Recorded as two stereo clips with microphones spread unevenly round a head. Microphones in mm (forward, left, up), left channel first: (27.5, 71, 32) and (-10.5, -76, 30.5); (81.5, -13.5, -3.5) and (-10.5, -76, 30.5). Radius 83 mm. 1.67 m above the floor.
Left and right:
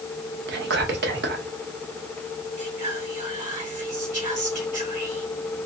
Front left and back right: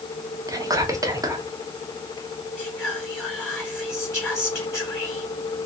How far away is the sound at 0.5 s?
About 1.3 m.